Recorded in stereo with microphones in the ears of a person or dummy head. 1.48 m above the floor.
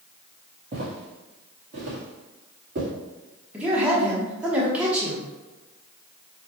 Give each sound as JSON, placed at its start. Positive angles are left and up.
{"t": 0.7, "sound": "footsteps", "side_deg": -40, "distance_m": 1.9}
{"t": 3.5, "sound": "a man speaking", "side_deg": -10, "distance_m": 1.1}